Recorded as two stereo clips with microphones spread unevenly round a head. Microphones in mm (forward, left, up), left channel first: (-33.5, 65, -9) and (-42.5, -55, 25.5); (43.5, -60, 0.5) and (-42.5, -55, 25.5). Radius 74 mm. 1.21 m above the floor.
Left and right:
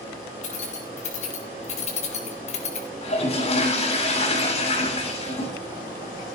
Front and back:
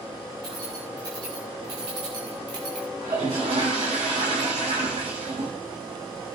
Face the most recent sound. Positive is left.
turn(degrees=125)